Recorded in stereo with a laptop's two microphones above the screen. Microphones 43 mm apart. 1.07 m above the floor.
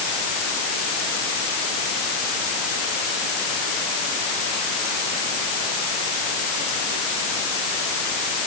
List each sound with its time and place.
Only background noise.